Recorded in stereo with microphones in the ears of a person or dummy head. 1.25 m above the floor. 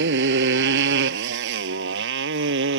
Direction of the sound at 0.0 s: 60° right (ahead or behind).